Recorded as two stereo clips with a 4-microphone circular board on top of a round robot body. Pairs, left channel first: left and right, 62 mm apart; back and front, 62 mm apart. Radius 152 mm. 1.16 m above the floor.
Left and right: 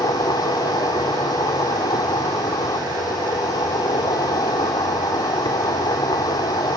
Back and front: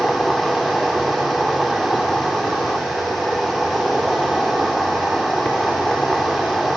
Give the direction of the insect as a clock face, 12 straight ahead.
9 o'clock.